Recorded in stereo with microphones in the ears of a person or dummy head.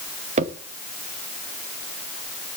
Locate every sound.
0.4 s a crack: 40° right (ahead or behind), 1.2 m